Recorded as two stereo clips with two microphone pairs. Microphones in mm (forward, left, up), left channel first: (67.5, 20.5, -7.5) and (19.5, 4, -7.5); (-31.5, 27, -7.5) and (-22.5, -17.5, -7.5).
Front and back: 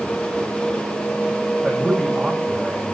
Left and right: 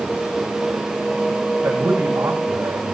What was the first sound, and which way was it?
A man speaking, 85° right.